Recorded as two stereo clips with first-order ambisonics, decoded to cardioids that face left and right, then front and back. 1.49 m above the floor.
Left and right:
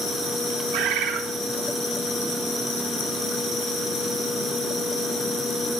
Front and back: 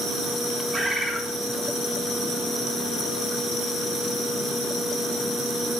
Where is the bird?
100° right, 1.7 m.